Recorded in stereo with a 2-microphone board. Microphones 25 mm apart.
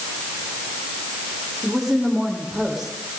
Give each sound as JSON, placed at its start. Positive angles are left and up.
{"t": 1.6, "sound": "a woman speaking", "side_deg": -10, "distance_m": 8.0}